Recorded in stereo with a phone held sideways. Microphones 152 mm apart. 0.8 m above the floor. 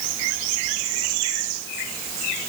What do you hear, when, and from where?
Only background noise.